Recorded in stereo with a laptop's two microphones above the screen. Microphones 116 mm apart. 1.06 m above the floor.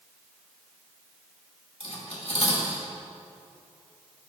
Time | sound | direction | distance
1.8 | cutlery clinking | 70° left (ahead or behind) | 1.8 m